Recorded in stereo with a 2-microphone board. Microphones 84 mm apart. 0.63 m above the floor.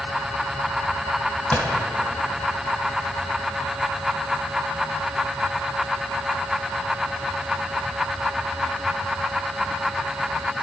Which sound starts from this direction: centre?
A gunshot, at 1.5 s.